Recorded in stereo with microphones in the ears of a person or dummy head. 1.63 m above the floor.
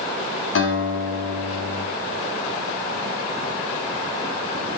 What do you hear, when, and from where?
0.6 s a guitar: 75° left (ahead or behind), 7 m